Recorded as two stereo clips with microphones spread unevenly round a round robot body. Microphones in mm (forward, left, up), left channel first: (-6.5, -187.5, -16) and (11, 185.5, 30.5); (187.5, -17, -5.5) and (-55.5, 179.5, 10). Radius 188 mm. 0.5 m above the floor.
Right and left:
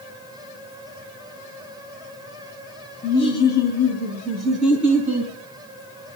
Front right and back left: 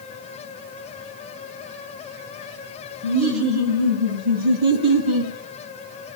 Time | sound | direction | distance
3.0 | laughter | 165° right | 3 m